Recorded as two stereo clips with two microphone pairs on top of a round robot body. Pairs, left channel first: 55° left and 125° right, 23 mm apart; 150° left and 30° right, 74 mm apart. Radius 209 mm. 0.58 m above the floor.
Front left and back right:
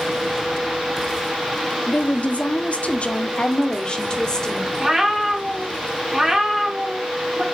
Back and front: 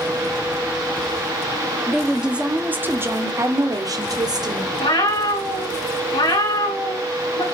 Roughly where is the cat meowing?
Behind.